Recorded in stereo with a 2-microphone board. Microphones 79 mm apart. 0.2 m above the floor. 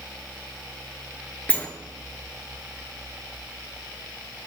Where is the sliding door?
20° left (ahead or behind), 0.8 m.